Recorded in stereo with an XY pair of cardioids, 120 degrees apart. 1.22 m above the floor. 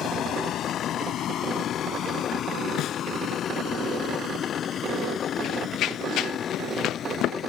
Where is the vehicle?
65° left; by 7.5 s 50° left.